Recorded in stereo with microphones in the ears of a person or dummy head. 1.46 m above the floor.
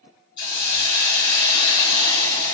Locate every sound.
0.4 s a hiss: 65° left (ahead or behind), 2 m